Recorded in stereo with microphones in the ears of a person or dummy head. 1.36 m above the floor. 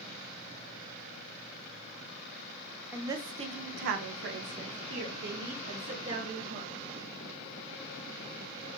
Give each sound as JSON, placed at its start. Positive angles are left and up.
{"t": 2.9, "sound": "a woman speaking", "side_deg": -20, "distance_m": 0.7}